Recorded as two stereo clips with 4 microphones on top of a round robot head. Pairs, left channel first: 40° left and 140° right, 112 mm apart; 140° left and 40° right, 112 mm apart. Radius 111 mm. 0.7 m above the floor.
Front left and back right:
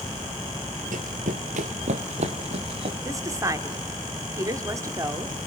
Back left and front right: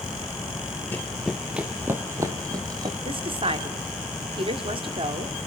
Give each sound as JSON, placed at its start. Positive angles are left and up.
{"t": 0.9, "sound": "running footsteps", "azimuth_deg": -150, "distance_m": 1.0}
{"t": 3.0, "sound": "a woman speaking", "azimuth_deg": -80, "distance_m": 2.0}